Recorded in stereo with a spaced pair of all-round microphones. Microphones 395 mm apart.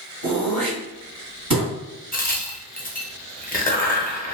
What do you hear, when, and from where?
0.2 s throat clearing: 50° right (ahead or behind), 1.4 m
2.1 s a crack: 25° left (ahead or behind), 0.5 m